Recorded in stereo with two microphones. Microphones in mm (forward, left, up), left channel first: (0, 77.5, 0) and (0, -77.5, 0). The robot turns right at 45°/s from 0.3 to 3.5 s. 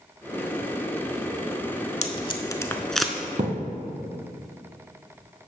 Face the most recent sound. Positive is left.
turn(degrees=-45)  # may be behind; listen again after turning